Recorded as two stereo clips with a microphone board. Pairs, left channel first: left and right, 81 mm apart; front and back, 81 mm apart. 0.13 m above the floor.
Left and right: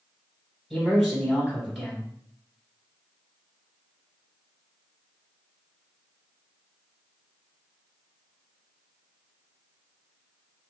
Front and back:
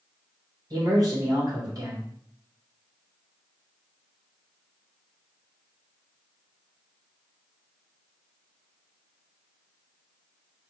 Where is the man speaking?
Straight behind, 1.8 m.